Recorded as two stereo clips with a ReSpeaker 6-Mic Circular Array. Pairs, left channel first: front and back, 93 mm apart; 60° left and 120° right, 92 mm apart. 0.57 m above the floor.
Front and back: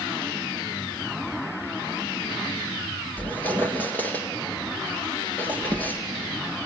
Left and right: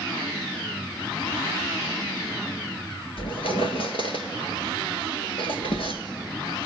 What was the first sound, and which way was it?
A squeak, 70° left.